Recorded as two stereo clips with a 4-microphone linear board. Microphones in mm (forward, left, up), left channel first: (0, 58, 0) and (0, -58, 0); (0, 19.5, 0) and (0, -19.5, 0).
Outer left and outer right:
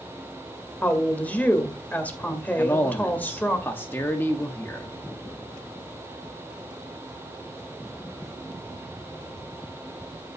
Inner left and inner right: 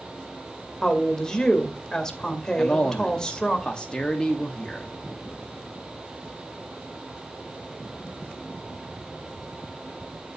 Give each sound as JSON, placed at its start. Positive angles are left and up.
{"t": 0.8, "sound": "a woman speaking", "side_deg": 15, "distance_m": 2.0}
{"t": 2.6, "sound": "a man speaking", "side_deg": 20, "distance_m": 1.2}